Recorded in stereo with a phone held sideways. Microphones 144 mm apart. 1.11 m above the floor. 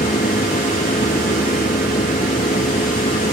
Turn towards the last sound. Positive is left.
turn(degrees=85)